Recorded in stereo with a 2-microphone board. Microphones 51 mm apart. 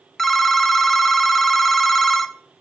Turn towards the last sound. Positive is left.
turn(degrees=5)  # may be behind; listen again after turning